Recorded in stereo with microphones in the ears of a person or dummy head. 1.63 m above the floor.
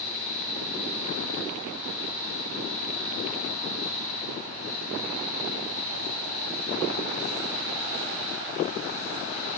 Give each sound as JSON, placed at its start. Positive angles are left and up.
{"t": 0.0, "sound": "a fan", "side_deg": -60, "distance_m": 1.5}